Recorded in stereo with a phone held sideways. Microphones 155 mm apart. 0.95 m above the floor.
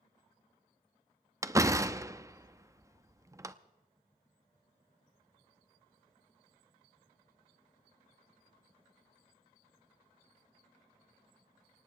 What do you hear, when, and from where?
1.4 s a door slam: 20° right (ahead or behind), 0.6 m